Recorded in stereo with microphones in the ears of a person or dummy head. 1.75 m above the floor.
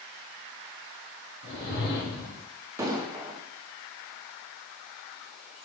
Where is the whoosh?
60° left (ahead or behind), 1.3 m.